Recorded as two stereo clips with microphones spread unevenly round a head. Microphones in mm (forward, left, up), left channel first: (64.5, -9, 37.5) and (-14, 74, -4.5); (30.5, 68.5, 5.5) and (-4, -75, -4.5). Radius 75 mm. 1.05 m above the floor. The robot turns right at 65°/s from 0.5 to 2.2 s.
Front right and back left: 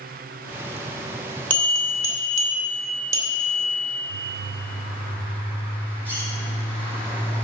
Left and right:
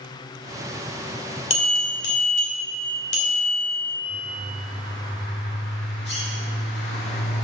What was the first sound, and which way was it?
A bell, 30° left.